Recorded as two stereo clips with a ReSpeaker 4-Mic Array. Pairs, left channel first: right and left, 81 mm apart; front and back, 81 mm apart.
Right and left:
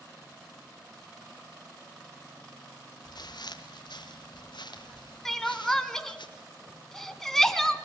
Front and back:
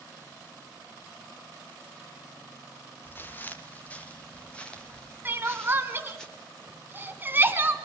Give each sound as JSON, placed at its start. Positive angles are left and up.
{"t": 3.0, "sound": "footsteps", "azimuth_deg": -65, "distance_m": 2.5}
{"t": 5.2, "sound": "crying", "azimuth_deg": -170, "distance_m": 1.4}